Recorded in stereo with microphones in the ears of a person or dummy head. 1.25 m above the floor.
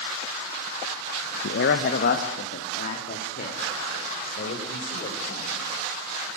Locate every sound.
1.4 s a man speaking: 65° left (ahead or behind), 0.8 m; by 5.6 s 45° left (ahead or behind), 6.5 m